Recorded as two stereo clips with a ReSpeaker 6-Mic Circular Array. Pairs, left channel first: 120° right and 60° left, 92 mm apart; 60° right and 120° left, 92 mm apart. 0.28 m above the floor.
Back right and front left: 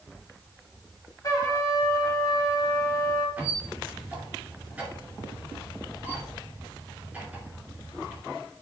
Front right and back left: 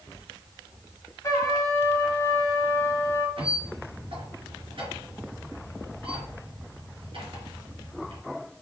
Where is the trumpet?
95° right, 1.1 m.